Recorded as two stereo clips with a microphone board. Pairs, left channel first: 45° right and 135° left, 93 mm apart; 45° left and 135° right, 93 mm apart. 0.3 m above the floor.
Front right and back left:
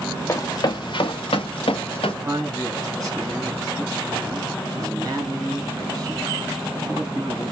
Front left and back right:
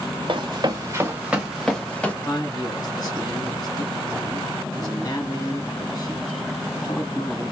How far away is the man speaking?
About 2.5 m.